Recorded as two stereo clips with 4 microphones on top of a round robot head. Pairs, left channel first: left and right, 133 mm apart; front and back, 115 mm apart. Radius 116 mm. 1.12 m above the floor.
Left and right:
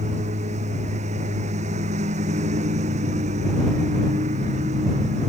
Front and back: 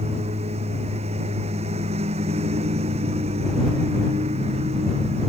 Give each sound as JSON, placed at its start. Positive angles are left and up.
{"t": 0.0, "sound": "a lawn mower", "azimuth_deg": -135}